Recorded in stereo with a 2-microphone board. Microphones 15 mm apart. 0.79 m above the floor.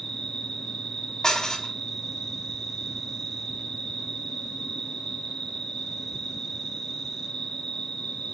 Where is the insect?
80° left, 3 m.